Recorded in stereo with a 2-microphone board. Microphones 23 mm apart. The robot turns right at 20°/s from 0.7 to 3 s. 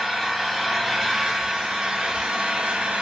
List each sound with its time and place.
0.0 s an engine running: 175° right, 0.8 m; by 3.0 s 130° right, 0.8 m